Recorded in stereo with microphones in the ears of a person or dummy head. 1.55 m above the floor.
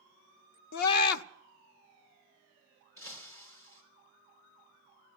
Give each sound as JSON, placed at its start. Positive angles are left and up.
{"t": 0.7, "sound": "a scream", "side_deg": 55, "distance_m": 0.7}
{"t": 3.0, "sound": "breaking glass", "side_deg": 15, "distance_m": 3.0}